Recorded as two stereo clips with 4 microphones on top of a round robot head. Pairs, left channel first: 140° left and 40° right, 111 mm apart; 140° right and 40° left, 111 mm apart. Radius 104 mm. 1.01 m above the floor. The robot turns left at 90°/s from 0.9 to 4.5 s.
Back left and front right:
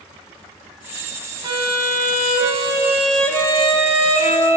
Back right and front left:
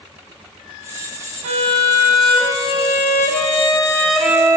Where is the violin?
15° left, 1.1 m; by 4.6 s 100° left, 1.1 m.